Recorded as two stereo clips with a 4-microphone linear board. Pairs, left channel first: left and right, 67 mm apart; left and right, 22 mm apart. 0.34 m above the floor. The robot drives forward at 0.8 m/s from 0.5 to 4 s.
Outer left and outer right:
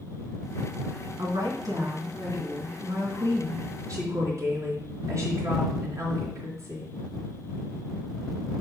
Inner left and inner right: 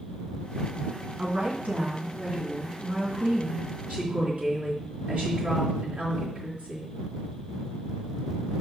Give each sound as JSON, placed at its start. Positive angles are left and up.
{"t": 1.2, "sound": "a woman speaking", "side_deg": -70, "distance_m": 3.0}